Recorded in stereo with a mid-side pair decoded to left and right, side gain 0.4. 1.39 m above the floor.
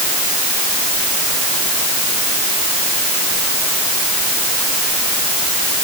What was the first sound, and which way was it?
Only background noise.